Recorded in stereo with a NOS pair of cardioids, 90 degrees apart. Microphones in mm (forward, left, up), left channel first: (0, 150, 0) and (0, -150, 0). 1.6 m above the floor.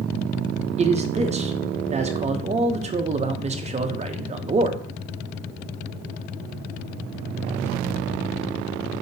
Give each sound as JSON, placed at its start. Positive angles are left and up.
{"t": 0.8, "sound": "a man speaking", "azimuth_deg": -25, "distance_m": 0.6}